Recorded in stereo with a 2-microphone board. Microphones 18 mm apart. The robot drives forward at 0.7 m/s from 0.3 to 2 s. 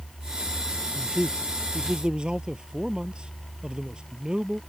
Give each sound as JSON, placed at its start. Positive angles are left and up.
{"t": 0.9, "sound": "a man speaking", "side_deg": -60}